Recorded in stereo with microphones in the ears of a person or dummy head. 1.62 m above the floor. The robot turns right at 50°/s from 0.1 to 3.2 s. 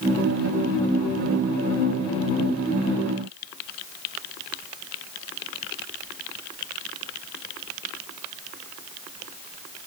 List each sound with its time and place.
Only background noise.